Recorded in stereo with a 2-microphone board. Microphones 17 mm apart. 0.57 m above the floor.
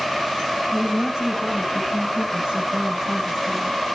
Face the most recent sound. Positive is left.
turn(degrees=-40)  # may be behind; listen again after turning